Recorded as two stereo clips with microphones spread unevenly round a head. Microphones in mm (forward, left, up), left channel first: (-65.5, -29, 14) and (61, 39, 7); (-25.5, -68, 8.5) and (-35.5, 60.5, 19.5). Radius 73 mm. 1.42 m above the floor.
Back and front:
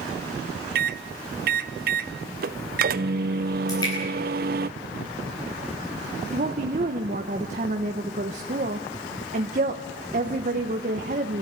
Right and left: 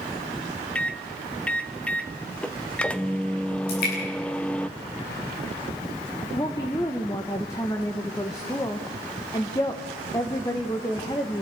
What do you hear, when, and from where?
0.8 s a microwave: straight ahead, 0.5 m
3.7 s dripping: 85° right, 9.5 m
6.3 s a woman speaking: 15° right, 1.1 m